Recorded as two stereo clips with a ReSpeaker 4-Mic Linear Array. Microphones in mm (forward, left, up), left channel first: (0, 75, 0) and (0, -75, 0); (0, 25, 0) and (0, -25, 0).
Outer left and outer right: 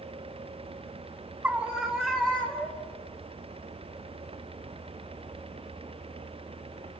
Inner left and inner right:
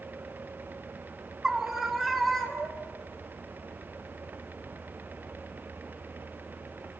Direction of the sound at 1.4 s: 10° right (ahead or behind).